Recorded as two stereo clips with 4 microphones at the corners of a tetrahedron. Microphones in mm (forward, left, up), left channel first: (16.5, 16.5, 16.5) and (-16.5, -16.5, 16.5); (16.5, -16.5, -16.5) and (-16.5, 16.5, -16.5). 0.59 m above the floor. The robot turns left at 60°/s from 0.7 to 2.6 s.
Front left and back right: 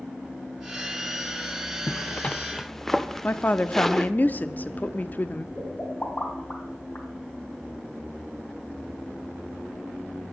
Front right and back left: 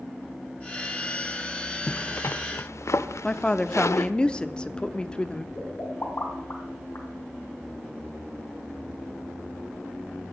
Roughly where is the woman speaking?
Ahead.